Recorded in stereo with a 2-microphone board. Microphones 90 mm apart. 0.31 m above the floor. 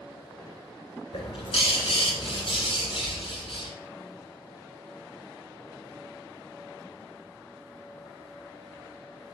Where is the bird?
75° left (ahead or behind), 1.9 m.